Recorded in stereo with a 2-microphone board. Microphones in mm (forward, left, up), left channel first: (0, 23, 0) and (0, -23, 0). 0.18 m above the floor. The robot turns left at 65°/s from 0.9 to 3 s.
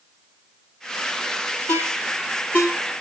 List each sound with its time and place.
1.7 s a ringtone: 70° left (ahead or behind), 3 m; by 2.7 s 40° left (ahead or behind), 3 m